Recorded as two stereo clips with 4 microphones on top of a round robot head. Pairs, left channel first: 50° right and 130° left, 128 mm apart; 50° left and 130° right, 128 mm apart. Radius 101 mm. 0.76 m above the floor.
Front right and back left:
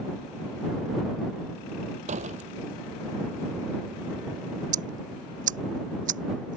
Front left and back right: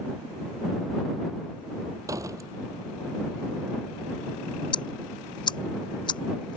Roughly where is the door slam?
Behind.